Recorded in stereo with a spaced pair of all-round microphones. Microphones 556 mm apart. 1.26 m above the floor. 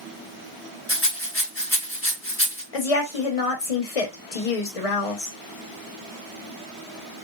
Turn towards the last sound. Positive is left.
turn(degrees=75)  # may be behind; listen again after turning